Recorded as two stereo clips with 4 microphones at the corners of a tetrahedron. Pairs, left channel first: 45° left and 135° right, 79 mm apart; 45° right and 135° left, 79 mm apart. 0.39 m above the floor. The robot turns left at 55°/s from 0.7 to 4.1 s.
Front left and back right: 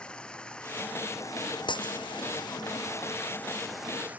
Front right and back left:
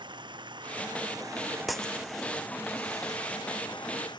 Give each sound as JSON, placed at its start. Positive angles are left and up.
{"t": 0.0, "sound": "running water", "azimuth_deg": 125}
{"t": 1.7, "sound": "breaking glass", "azimuth_deg": 45}